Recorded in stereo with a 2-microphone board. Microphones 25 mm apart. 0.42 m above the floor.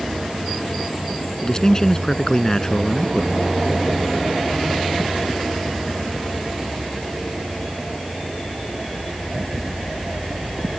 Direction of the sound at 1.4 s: 25° left (ahead or behind).